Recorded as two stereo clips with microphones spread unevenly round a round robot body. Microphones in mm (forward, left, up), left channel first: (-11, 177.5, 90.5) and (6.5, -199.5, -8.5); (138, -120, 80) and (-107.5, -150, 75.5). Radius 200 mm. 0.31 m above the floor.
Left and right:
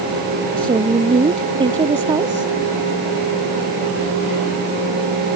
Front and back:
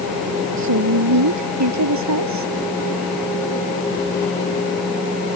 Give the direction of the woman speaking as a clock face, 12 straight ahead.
5 o'clock.